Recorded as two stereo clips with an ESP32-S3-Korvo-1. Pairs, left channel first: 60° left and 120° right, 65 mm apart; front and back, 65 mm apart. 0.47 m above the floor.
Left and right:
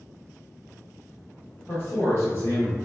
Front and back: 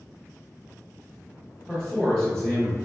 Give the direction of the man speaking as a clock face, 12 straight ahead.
10 o'clock.